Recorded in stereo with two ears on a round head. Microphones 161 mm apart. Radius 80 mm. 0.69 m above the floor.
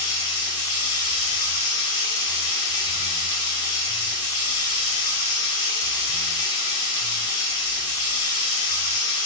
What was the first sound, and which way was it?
Running water, 25° left (ahead or behind).